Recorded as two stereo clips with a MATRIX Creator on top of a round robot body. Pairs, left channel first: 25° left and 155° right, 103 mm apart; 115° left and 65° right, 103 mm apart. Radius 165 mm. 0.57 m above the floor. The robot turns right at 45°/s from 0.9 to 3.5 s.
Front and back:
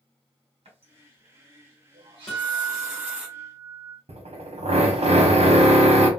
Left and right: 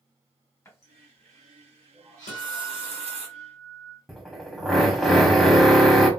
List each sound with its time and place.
0.7 s a running tap: straight behind, 1.4 m; by 3.3 s 75° right, 1.4 m
2.3 s a guitar: 110° left, 0.6 m; by 4.0 s 165° left, 0.6 m
4.1 s a drill: 155° right, 1.0 m